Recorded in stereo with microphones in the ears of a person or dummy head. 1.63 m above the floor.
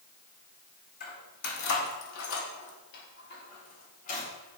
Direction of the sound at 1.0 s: 50° left (ahead or behind).